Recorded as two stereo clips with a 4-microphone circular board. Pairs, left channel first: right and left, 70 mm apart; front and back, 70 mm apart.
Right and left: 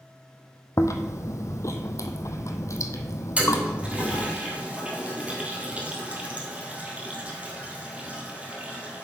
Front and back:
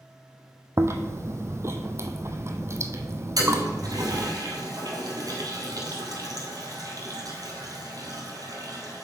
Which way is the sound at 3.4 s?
160° left.